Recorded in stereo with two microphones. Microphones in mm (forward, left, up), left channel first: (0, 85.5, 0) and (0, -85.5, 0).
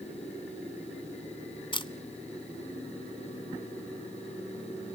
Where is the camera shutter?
30° left (ahead or behind), 0.8 m.